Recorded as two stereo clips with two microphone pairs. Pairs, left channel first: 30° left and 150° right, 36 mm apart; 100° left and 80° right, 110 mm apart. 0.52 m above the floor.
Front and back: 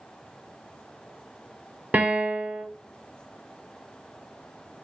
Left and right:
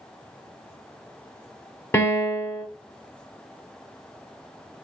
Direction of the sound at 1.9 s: 165° left.